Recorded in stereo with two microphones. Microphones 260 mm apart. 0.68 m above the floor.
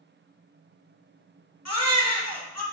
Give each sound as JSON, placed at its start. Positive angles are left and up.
{"t": 1.6, "sound": "a baby crying", "side_deg": 75, "distance_m": 1.0}